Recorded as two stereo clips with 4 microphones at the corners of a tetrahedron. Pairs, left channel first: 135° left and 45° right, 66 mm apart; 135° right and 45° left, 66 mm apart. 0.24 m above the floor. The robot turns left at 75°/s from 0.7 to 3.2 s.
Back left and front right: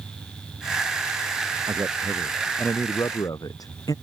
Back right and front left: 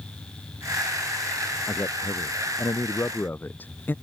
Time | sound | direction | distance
1.7 | a man speaking | 80° right | ?